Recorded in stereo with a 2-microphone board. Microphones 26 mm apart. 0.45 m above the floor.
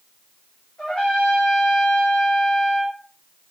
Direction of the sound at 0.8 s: 50° left (ahead or behind).